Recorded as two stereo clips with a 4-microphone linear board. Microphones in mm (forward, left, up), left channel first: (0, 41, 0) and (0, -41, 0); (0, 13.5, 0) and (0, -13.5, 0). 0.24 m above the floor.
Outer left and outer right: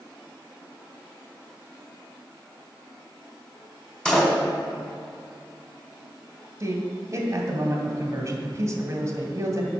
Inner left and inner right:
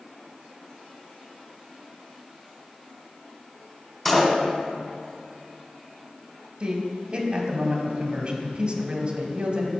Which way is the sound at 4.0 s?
10° left (ahead or behind).